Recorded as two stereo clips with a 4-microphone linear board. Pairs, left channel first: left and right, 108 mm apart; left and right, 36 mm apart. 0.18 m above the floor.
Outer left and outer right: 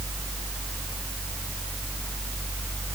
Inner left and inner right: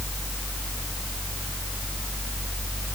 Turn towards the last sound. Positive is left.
No sound to turn to.